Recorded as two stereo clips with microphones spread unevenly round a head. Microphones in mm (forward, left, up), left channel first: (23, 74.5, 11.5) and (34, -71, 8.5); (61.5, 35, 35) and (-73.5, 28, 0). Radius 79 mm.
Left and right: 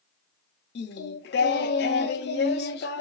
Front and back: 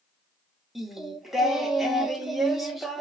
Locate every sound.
0.8 s singing: 90° left, 0.6 m